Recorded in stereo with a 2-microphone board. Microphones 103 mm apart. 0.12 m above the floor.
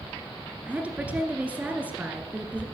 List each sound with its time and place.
0.7 s a woman speaking: 15° right (ahead or behind), 1.9 m